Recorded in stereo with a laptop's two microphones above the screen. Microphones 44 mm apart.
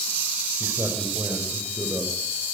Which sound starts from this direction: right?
A man speaking, at 0.6 s.